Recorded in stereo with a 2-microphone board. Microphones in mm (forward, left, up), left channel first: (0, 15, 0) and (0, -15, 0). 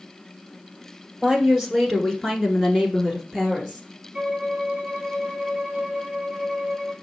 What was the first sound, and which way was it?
A woman speaking, 5° left (ahead or behind).